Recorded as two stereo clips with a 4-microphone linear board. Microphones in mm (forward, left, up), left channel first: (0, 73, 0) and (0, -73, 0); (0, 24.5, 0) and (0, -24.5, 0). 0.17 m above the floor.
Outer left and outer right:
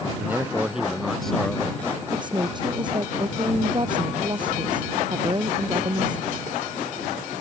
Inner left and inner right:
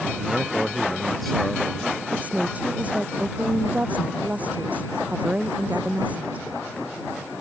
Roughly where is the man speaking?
Centre.